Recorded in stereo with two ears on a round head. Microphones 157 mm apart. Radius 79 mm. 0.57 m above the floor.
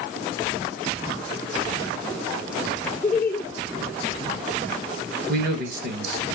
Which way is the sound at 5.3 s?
60° right (ahead or behind).